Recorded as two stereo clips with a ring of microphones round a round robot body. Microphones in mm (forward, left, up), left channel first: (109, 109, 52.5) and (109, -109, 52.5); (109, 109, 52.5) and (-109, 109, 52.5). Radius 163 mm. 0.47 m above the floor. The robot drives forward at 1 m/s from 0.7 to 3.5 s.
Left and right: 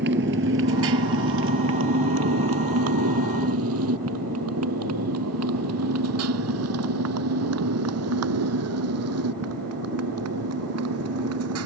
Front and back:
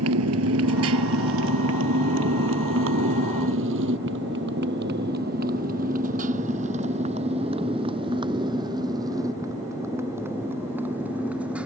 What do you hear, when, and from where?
0.0 s a motorcycle: 145° right; by 11.7 s 95° right